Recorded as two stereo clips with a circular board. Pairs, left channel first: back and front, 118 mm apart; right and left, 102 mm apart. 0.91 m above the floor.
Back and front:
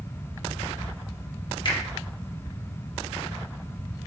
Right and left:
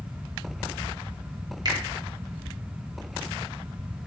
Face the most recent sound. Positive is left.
turn(degrees=135)